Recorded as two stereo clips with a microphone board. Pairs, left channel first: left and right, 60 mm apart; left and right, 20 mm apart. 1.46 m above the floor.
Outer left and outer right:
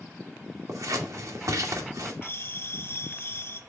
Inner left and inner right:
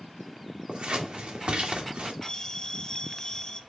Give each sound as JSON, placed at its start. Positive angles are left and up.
{"t": 0.7, "sound": "scissors", "side_deg": -70, "distance_m": 2.0}
{"t": 2.2, "sound": "a bell", "side_deg": 40, "distance_m": 1.0}